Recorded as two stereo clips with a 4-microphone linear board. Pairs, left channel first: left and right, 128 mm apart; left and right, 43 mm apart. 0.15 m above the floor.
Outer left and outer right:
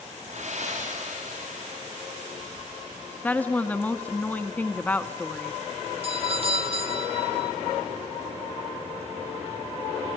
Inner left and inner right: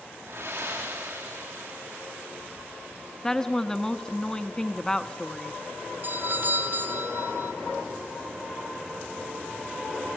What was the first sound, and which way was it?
Breathing, 65° right (ahead or behind).